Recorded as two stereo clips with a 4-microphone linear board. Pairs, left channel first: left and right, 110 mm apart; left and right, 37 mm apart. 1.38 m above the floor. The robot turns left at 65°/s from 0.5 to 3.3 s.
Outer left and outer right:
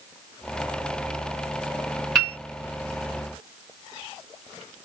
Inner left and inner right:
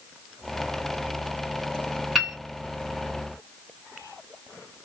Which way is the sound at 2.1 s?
Centre (ahead or behind).